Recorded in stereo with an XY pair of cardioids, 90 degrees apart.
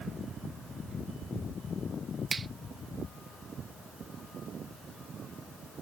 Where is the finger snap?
35° right.